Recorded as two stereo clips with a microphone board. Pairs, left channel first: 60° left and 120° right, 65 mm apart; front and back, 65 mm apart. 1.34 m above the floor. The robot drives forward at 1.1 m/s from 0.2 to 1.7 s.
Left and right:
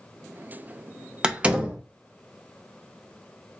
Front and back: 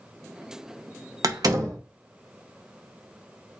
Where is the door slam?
165° left, 0.7 m; by 1.8 s 170° left, 1.2 m.